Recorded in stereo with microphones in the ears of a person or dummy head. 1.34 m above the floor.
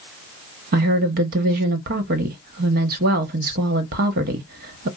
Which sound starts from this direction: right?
A woman speaking, at 0.7 s.